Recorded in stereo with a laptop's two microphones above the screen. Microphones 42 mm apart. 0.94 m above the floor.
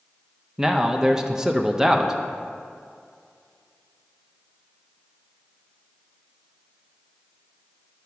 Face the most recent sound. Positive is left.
turn(degrees=-15)  # may be behind; listen again after turning